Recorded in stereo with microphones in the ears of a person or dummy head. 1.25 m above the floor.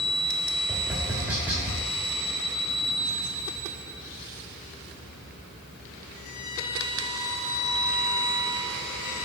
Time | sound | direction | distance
0.7 | tapping | 5° right (ahead or behind) | 2.0 m